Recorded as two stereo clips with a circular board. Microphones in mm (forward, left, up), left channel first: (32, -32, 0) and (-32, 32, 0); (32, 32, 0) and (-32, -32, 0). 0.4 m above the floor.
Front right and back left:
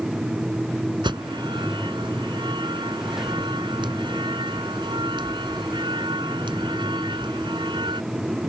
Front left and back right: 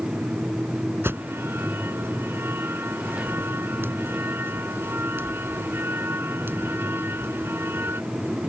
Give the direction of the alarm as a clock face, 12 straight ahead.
7 o'clock.